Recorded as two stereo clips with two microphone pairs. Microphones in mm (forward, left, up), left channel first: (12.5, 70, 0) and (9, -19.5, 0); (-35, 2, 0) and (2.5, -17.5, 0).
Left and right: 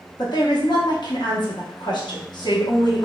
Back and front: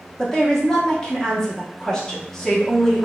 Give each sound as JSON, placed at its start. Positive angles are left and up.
{"t": 0.2, "sound": "a woman speaking", "azimuth_deg": 80, "distance_m": 0.9}